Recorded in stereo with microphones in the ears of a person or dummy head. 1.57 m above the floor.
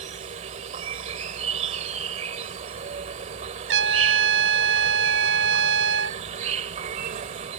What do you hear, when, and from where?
0.0 s an insect: 40° right (ahead or behind)
3.7 s a trumpet: 70° right (ahead or behind)